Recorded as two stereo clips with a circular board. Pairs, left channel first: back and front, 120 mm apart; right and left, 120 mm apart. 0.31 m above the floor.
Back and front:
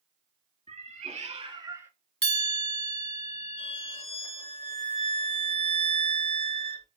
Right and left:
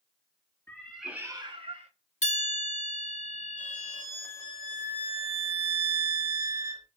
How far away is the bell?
About 0.8 m.